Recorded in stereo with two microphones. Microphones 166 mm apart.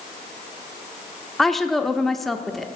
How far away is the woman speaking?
About 0.8 m.